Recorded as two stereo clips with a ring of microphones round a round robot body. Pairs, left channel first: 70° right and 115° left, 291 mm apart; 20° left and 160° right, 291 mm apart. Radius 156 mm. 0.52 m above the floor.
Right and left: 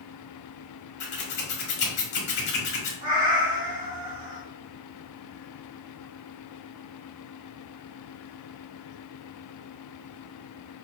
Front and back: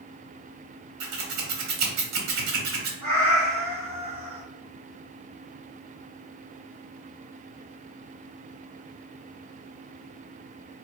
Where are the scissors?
125° right, 1.0 m.